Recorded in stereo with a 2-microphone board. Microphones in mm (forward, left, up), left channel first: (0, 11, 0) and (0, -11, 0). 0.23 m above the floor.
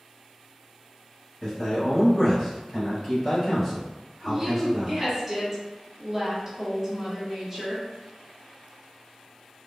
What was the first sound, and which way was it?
A man speaking, 25° left (ahead or behind).